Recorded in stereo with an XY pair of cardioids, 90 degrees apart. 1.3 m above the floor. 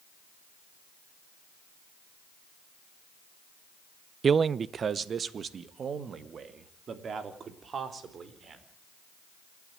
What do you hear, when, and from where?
4.2 s a man speaking: 50° right, 0.7 m; by 8.6 s 55° right, 4.5 m